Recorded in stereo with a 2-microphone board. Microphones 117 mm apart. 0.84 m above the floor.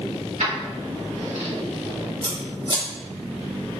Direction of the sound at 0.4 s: 80° right.